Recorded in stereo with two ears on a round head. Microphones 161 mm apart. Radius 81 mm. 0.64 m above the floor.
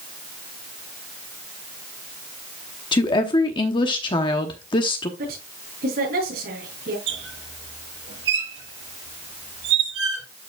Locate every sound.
2.9 s a woman speaking: 30° left (ahead or behind), 0.9 m
5.2 s a woman speaking: 55° right (ahead or behind), 6 m
7.1 s a squeak: 80° right, 6.5 m